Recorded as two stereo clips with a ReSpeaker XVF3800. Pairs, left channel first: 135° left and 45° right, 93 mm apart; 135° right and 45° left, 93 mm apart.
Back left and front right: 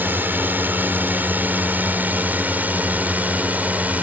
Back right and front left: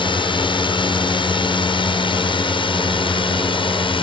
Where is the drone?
115° right; by 4.0 s 120° right.